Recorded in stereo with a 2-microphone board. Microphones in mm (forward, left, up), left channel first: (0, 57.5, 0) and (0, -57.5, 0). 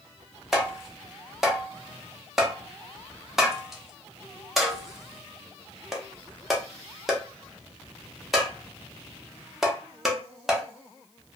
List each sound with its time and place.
0.5 s tapping: centre (ahead or behind), 0.6 m